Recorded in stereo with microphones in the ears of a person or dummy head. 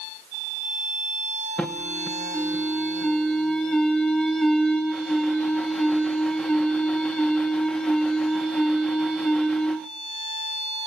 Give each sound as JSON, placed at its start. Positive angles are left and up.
{"t": 1.6, "sound": "an alarm", "side_deg": 0, "distance_m": 0.6}